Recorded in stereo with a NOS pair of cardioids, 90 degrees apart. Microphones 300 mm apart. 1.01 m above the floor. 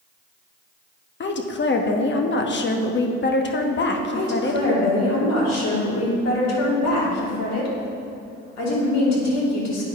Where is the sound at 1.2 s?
40° left, 1.1 m.